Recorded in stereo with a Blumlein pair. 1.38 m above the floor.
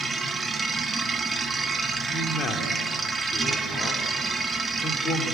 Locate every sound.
0.0 s a machine running: 10° right, 1.5 m
2.1 s a man speaking: 25° left, 3.5 m